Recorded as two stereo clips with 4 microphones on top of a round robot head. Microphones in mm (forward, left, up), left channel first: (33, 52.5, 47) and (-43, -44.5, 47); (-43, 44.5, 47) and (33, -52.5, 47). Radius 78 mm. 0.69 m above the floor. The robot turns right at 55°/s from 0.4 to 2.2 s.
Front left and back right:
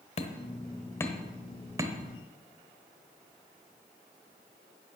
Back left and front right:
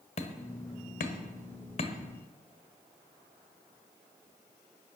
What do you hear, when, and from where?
0.2 s hammering: 90° left, 1.2 m; by 1.9 s 175° left, 1.2 m